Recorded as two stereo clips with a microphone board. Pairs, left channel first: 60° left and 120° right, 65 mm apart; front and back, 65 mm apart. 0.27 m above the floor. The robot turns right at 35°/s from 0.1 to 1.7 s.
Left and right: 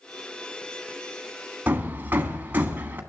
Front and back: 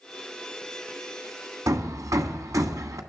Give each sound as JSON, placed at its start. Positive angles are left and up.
{"t": 1.7, "sound": "hammering", "azimuth_deg": -175, "distance_m": 1.5}